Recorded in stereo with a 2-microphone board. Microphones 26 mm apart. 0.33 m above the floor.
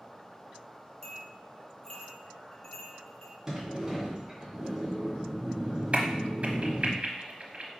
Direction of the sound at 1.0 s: 15° left (ahead or behind).